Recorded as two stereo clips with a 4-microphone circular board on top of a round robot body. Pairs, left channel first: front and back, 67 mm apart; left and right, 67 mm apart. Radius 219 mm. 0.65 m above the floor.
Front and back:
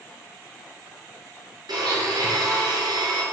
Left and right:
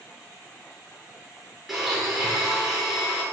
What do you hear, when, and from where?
1.7 s a blender: straight behind, 6 m